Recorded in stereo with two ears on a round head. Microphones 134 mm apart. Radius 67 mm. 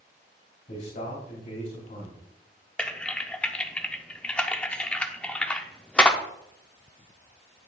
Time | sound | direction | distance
0.7 | a man speaking | 50° left (ahead or behind) | 3 m
2.8 | typing on a keyboard | 10° left (ahead or behind) | 0.6 m